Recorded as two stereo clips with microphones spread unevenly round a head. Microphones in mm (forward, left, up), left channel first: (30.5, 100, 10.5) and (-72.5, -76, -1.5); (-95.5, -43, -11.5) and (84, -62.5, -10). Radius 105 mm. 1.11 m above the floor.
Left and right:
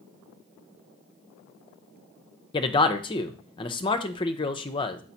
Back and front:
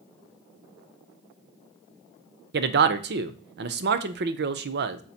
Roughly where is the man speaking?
Ahead.